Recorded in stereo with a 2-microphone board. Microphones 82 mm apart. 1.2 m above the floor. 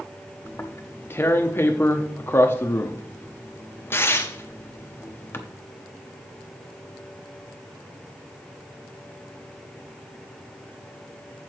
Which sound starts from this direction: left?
Tearing paper, at 0.5 s.